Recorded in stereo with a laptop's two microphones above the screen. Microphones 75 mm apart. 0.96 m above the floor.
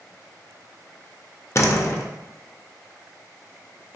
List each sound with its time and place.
1.6 s a door slam: 40° left (ahead or behind), 0.5 m